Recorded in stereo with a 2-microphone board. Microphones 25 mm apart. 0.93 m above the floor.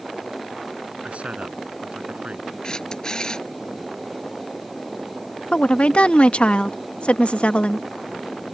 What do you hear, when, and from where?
1.0 s a man speaking: 60° right (ahead or behind)
2.6 s a camera shutter: 35° left (ahead or behind)
5.5 s a woman speaking: 55° left (ahead or behind)